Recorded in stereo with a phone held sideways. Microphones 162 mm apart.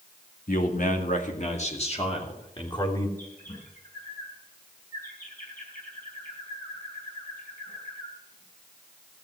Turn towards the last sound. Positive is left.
turn(degrees=60)  # may be behind; listen again after turning